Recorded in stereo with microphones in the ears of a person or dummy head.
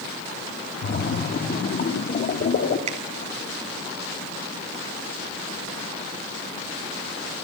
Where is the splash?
45° left (ahead or behind), 2.5 m.